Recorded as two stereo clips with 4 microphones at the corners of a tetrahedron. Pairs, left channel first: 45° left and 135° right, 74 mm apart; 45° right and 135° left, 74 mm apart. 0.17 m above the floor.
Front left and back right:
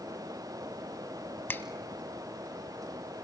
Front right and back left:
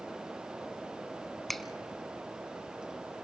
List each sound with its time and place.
1.5 s a finger snap: 40° left, 0.8 m